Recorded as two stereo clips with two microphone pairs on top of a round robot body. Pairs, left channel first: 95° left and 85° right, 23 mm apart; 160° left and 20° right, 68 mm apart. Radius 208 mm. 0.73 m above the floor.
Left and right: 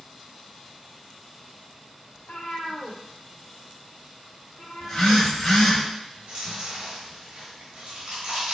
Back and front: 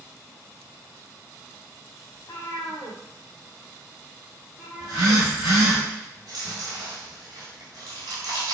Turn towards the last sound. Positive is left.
turn(degrees=-50)